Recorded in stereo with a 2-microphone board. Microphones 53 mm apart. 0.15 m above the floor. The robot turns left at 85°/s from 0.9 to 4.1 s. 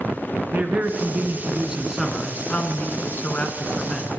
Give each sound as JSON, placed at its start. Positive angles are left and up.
{"t": 0.5, "sound": "a man speaking", "azimuth_deg": -85, "distance_m": 1.5}